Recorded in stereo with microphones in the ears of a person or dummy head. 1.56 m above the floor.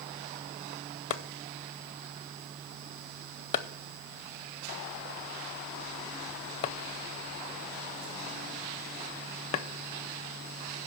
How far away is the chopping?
About 0.6 m.